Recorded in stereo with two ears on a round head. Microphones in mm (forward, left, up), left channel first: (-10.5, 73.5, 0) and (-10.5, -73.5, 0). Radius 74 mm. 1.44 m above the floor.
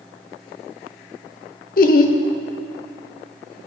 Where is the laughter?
55° left (ahead or behind), 0.6 m.